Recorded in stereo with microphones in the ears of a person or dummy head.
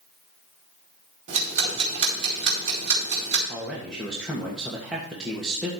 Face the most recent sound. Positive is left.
turn(degrees=0)  # may be behind; listen again after turning